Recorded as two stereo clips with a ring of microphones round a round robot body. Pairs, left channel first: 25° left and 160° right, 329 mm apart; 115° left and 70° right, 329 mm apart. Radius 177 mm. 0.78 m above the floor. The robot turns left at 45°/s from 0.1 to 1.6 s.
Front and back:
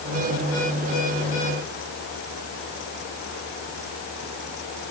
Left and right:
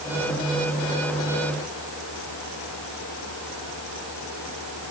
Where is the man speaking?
I don't hear a man speaking.